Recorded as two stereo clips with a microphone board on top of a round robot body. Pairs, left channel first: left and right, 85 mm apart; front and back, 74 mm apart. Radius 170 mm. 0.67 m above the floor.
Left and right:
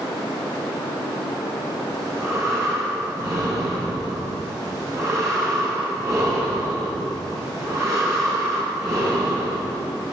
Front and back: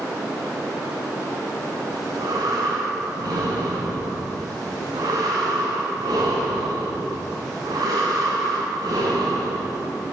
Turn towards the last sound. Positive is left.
turn(degrees=-145)